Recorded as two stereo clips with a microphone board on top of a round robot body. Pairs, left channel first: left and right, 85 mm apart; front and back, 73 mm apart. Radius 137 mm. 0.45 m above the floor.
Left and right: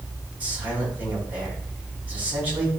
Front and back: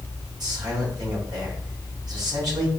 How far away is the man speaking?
About 4.5 m.